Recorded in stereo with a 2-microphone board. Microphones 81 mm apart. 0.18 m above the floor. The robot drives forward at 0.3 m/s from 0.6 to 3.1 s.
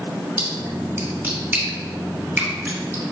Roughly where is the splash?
Right.